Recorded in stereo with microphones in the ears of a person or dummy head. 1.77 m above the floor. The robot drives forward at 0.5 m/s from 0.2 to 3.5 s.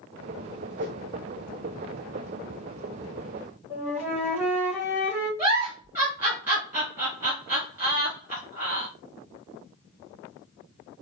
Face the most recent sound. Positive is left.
turn(degrees=-15)  # may be behind; listen again after turning